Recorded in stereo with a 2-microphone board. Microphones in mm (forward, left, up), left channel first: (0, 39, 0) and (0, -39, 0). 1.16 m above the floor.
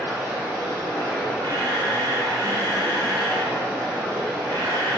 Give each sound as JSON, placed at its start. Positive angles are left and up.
{"t": 0.0, "sound": "running water", "side_deg": -75, "distance_m": 2.0}
{"t": 1.4, "sound": "a camera shutter", "side_deg": -85, "distance_m": 0.7}